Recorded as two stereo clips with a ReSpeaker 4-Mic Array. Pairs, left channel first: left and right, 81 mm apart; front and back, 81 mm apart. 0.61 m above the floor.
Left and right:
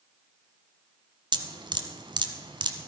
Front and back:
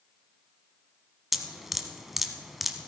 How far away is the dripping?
About 1.1 m.